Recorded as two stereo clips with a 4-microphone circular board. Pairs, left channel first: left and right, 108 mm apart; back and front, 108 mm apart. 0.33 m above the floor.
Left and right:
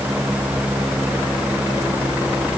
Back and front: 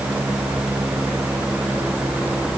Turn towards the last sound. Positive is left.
No sound to turn to.